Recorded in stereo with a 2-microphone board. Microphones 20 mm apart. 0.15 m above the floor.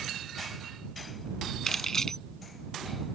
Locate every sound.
1.7 s keys jangling: 25° left (ahead or behind)